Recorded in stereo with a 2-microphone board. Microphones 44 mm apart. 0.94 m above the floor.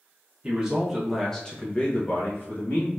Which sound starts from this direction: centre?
A man speaking, at 0.4 s.